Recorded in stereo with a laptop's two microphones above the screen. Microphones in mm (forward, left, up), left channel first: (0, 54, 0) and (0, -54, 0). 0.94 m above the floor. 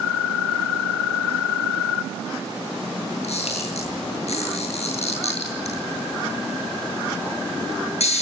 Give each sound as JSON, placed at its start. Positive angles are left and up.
{"t": 3.2, "sound": "a camera shutter", "side_deg": 75, "distance_m": 8.0}